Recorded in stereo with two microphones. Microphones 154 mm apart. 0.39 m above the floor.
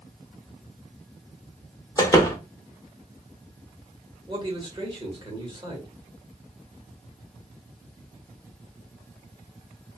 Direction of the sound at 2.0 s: 20° left (ahead or behind).